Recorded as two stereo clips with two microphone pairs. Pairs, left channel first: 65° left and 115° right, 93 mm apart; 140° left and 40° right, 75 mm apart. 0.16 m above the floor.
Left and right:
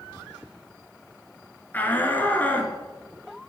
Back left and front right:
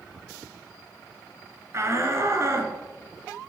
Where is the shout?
Straight ahead, 2.0 m.